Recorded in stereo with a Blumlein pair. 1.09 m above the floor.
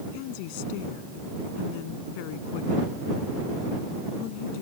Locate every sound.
0.1 s a woman speaking: 45° left